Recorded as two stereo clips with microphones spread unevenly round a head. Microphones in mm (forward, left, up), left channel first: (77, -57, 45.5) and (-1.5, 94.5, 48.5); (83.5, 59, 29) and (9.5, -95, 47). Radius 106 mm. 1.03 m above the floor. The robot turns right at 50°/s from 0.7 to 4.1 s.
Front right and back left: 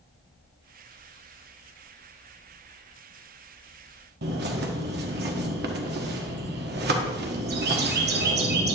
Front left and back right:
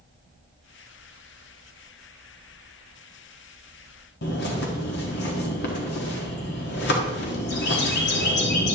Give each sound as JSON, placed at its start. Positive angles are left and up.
{"t": 4.2, "sound": "a bird", "azimuth_deg": 95, "distance_m": 1.5}